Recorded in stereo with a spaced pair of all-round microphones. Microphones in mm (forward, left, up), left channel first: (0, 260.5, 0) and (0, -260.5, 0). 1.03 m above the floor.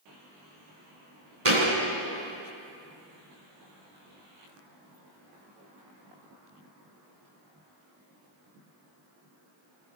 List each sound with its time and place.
1.4 s a thud: 75° right (ahead or behind), 2.5 m